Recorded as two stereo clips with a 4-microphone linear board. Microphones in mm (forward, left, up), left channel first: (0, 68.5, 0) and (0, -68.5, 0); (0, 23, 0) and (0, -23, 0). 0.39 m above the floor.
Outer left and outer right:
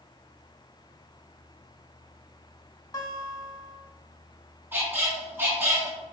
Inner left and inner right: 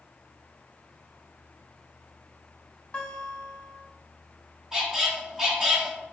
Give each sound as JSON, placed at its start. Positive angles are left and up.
{"t": 2.9, "sound": "a guitar", "side_deg": 30, "distance_m": 0.7}
{"t": 4.7, "sound": "a squeak", "side_deg": -15, "distance_m": 0.9}